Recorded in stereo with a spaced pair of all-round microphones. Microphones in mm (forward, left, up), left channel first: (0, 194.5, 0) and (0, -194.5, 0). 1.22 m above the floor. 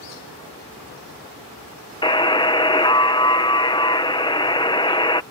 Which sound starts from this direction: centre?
A buzzer, at 2.0 s.